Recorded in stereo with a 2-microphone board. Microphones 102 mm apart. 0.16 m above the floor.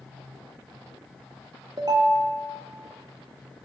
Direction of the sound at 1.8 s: 40° right (ahead or behind).